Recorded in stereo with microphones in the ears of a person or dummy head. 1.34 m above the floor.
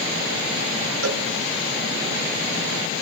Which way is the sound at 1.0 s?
80° right.